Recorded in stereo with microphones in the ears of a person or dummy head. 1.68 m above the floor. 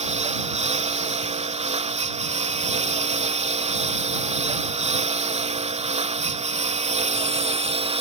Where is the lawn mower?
30° right (ahead or behind); by 8.0 s 25° right (ahead or behind).